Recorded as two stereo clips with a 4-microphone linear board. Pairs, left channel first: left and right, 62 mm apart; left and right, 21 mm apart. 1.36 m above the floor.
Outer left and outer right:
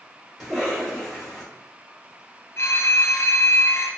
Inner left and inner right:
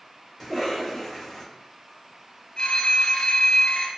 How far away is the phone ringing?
About 0.5 m.